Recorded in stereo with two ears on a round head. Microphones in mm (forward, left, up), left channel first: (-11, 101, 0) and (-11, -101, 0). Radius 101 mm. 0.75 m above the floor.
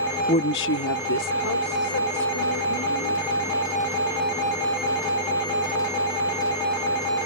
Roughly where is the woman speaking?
Left.